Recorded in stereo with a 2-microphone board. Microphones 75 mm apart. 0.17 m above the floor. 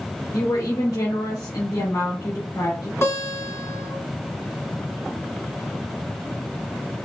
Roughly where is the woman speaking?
Left.